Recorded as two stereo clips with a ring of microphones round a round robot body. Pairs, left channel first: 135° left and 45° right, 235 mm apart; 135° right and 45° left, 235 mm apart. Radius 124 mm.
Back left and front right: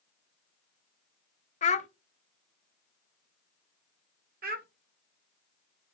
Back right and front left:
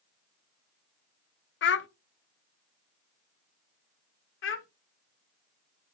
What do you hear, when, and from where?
1.6 s a child speaking: 165° right, 0.7 m
4.4 s a child speaking: 100° right, 1.3 m